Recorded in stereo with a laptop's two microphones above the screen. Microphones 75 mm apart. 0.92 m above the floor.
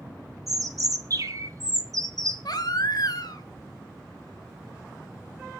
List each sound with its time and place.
0.5 s a bird: 50° right (ahead or behind), 1.5 m
2.5 s a baby crying: 60° left (ahead or behind), 1.4 m